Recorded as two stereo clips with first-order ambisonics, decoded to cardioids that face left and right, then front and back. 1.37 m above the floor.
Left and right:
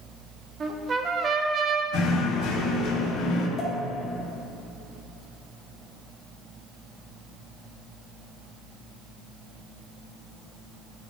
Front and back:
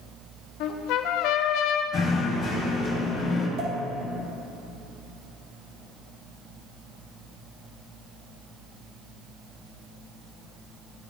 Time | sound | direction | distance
0.6 | a trumpet | 25° right | 0.6 m
1.9 | knocking | 60° left | 1.6 m
3.6 | a pop | 150° left | 2.5 m